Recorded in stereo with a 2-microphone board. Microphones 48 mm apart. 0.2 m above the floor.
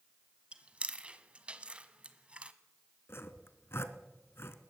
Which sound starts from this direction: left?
Sawing, at 3.1 s.